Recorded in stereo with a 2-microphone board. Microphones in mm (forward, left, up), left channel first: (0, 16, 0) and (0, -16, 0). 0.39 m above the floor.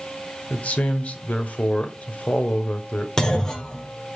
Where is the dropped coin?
No dropped coin in this recording.